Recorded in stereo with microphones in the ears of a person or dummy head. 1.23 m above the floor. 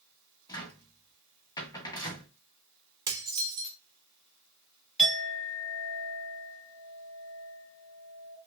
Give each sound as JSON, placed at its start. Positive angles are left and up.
{"t": 0.5, "sound": "a cupboard door", "side_deg": 20, "distance_m": 1.0}
{"t": 3.1, "sound": "dishes clattering", "side_deg": -20, "distance_m": 1.2}
{"t": 5.0, "sound": "a clink", "side_deg": 0, "distance_m": 1.5}